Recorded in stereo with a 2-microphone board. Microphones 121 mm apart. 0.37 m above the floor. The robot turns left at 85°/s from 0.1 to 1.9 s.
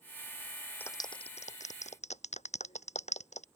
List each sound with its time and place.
0.8 s a clap: 15° left (ahead or behind); by 3.5 s 70° left (ahead or behind)